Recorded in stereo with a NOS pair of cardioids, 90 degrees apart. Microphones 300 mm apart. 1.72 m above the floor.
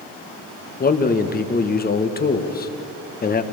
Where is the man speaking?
30° left, 1.9 m.